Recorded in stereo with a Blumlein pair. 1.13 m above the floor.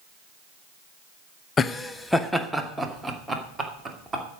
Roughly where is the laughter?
Ahead.